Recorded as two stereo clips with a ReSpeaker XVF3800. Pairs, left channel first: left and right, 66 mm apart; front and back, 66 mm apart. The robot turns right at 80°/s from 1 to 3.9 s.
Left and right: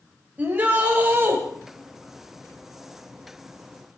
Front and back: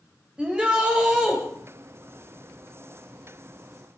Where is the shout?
120° right, 1.7 m; by 1.4 s 90° right, 1.7 m.